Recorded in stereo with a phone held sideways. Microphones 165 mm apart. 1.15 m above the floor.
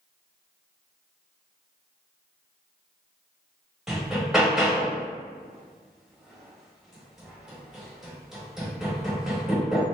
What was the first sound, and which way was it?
Hammering, 5° right (ahead or behind).